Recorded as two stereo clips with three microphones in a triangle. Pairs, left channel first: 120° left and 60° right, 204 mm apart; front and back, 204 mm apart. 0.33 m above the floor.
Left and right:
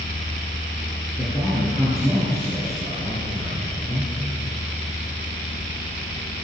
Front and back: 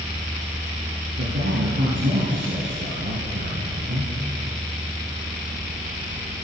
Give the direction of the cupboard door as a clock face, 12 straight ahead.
No cupboard door in this recording.